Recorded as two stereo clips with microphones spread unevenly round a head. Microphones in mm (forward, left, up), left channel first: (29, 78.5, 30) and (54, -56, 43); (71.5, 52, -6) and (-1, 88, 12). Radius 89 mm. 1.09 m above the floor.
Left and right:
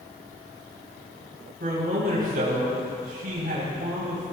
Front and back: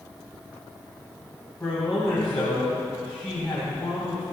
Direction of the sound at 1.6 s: 105° right.